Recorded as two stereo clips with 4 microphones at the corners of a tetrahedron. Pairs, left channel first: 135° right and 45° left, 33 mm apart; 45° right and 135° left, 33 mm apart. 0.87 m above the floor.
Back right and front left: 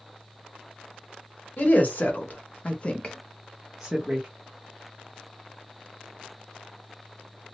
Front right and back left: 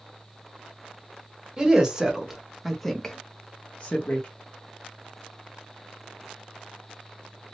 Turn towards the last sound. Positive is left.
turn(degrees=-15)